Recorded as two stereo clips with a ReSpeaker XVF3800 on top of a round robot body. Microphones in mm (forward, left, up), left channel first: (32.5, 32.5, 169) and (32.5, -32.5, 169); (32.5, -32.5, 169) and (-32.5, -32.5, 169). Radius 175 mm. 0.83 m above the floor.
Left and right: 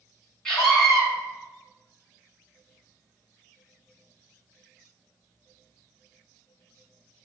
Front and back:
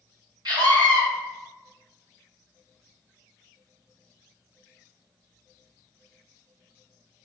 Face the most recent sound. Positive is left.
turn(degrees=170)